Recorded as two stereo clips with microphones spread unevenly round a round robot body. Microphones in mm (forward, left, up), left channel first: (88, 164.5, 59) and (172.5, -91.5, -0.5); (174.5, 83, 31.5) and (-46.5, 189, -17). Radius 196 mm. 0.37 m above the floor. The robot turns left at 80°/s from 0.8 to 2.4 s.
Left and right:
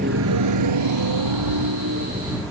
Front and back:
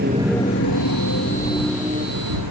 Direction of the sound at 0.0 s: 140° right.